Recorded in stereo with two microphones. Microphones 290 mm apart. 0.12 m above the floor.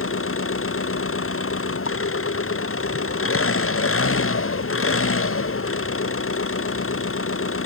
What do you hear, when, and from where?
0.0 s an engine running: 45° left (ahead or behind)